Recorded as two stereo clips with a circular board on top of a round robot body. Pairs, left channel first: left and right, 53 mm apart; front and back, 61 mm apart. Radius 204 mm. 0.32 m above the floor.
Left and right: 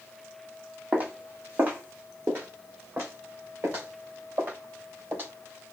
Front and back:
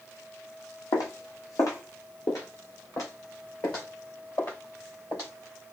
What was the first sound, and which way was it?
Footsteps, 25° right.